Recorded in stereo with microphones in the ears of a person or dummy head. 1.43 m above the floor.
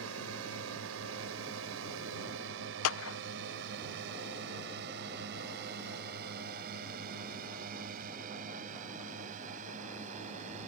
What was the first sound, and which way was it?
A drone, 85° right.